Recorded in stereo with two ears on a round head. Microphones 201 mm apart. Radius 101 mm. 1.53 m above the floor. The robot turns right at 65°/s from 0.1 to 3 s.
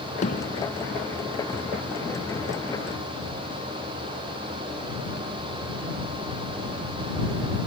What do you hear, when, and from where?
0.2 s hammering: 35° left (ahead or behind); by 0.7 s 65° left (ahead or behind)